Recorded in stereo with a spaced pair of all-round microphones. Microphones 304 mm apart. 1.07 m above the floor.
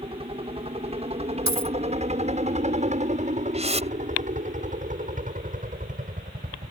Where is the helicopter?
20° right (ahead or behind); by 6.7 s 30° right (ahead or behind).